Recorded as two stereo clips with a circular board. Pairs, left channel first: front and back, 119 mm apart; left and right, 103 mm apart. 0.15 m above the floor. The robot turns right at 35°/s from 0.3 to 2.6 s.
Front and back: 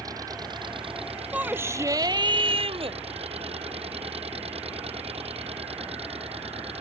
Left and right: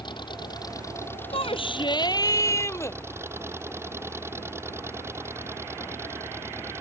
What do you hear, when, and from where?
0.0 s an engine running: 125° left; by 6.8 s 155° right
1.3 s a shout: 105° left; by 3.0 s 150° left